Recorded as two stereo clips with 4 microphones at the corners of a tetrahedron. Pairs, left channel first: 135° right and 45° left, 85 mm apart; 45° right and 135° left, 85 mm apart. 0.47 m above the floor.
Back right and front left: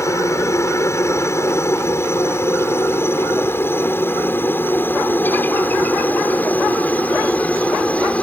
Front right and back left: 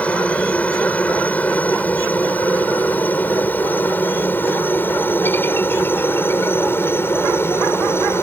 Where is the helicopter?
110° right; by 8.2 s 75° right.